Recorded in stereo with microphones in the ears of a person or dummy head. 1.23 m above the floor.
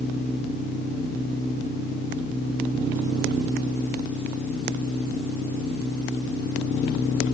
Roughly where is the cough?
I don't hear a cough.